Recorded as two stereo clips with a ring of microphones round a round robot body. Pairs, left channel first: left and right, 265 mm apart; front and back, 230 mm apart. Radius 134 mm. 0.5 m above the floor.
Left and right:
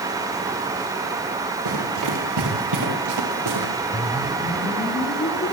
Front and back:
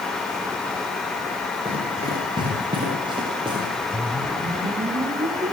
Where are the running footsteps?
105° right, 9 m.